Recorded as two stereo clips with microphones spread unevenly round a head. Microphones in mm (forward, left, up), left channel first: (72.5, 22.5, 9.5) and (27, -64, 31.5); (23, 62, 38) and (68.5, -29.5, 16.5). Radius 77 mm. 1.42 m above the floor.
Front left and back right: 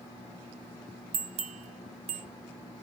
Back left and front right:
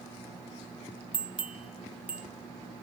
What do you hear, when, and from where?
1.1 s a bell: 135° right, 0.5 m